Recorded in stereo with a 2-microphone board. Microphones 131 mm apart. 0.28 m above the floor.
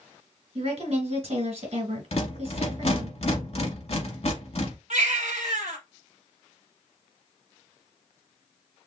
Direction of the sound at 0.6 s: 55° right (ahead or behind).